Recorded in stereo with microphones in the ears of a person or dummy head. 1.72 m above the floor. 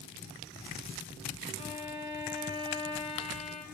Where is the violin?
25° left (ahead or behind), 2 m.